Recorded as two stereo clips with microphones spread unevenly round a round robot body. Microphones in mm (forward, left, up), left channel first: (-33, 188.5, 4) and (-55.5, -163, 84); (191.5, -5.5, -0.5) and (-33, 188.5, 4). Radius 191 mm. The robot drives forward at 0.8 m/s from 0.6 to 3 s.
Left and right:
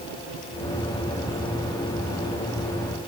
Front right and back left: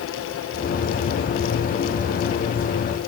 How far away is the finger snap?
I don't hear a finger snap.